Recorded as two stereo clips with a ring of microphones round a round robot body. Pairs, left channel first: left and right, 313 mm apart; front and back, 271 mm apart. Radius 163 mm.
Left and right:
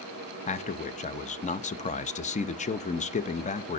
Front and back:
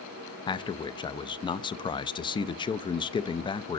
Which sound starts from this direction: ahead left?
A man speaking, at 0.5 s.